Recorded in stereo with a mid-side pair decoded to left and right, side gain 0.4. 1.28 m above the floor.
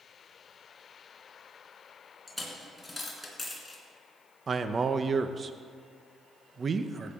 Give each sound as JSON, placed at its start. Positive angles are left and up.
{"t": 2.3, "sound": "a dropped coin", "azimuth_deg": 15, "distance_m": 3.5}
{"t": 4.5, "sound": "a man speaking", "azimuth_deg": -45, "distance_m": 0.9}